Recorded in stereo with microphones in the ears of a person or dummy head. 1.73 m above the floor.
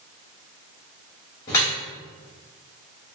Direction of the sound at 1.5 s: 20° left (ahead or behind).